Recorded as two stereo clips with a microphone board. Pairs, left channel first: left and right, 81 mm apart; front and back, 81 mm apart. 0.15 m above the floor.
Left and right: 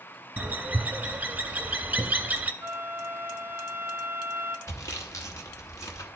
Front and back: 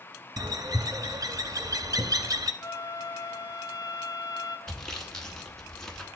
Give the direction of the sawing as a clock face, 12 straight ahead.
9 o'clock.